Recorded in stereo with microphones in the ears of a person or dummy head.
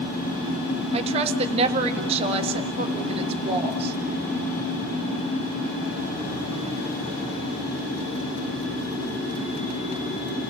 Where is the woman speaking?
30° right (ahead or behind), 1.6 m.